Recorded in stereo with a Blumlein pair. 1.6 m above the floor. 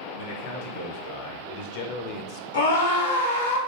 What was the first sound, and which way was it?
A man speaking, 55° left.